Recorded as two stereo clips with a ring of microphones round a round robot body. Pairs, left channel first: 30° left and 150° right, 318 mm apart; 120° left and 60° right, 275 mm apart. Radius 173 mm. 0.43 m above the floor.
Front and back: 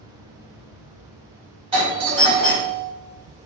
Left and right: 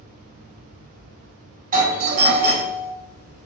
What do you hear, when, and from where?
1.7 s a doorbell: 90° right, 1.5 m